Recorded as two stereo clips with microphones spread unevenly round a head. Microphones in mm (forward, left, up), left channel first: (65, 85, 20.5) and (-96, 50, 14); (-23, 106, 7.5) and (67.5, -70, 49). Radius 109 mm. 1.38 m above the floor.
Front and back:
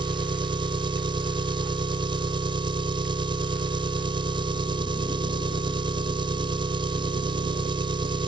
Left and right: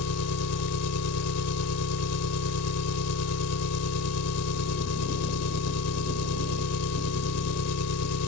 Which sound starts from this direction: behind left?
An engine running, at 0.0 s.